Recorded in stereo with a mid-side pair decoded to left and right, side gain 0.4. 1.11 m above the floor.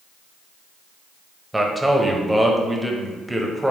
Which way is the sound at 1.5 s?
10° right.